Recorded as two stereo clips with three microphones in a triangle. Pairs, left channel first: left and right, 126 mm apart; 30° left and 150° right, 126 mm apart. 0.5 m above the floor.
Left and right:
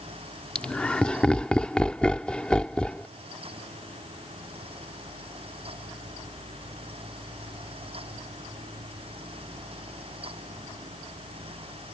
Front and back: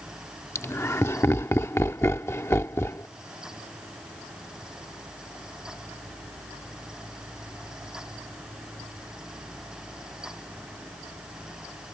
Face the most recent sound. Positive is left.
turn(degrees=20)